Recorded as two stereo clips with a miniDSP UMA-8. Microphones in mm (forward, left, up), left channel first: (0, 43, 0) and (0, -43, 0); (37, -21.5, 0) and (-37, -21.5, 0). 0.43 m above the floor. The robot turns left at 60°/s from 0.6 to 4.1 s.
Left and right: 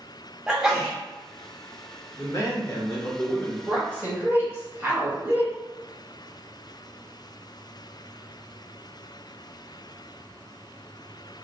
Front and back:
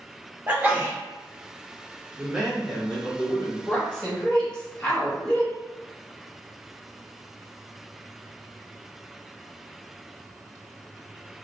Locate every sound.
0.5 s a sneeze: 160° right, 1.0 m; by 1.0 s straight behind, 1.0 m
2.2 s a man speaking: 115° left, 1.2 m; by 3.6 s 30° left, 1.2 m
3.7 s a woman speaking: 40° right, 1.3 m; by 5.5 s 65° right, 1.3 m